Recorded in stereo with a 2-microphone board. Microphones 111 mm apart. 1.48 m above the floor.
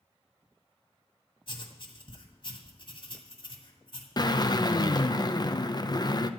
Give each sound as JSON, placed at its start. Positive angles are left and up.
{"t": 1.5, "sound": "writing", "side_deg": 50, "distance_m": 2.0}
{"t": 4.2, "sound": "a drill", "side_deg": 40, "distance_m": 0.6}